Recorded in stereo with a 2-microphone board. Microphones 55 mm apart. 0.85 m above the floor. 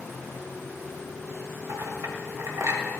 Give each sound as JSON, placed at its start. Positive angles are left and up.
{"t": 1.7, "sound": "a clink", "side_deg": -80, "distance_m": 2.0}